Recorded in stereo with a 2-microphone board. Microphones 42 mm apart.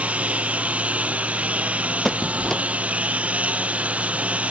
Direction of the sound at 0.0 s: 35° right (ahead or behind).